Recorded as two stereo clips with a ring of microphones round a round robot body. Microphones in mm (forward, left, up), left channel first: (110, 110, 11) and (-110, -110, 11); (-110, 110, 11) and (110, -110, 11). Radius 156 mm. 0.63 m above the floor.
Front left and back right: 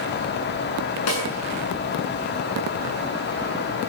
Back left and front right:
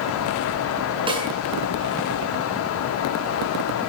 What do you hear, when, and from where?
1.1 s a snare drum: 30° left, 7 m